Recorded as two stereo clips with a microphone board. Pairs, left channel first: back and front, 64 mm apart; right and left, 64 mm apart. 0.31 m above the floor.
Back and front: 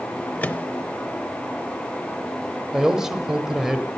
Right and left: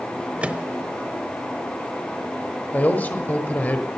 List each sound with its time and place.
0.4 s a microwave: 140° left, 0.8 m
2.7 s a man speaking: 75° right, 1.2 m